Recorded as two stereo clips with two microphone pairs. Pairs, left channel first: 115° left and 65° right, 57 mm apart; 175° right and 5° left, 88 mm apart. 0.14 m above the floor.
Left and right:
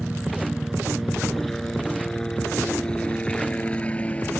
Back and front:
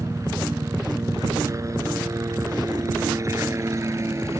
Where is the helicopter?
10° left; by 4.4 s 55° left.